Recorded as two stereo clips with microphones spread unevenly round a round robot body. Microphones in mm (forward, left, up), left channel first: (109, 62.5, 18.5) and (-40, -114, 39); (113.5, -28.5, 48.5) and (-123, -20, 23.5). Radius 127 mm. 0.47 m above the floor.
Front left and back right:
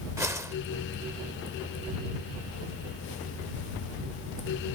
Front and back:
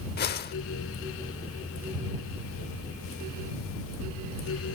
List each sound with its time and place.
0.2 s a whoosh: 50° right